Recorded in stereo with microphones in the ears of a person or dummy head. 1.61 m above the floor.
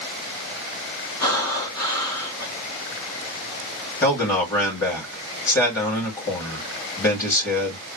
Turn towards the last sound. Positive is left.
turn(degrees=5)  # may be behind; listen again after turning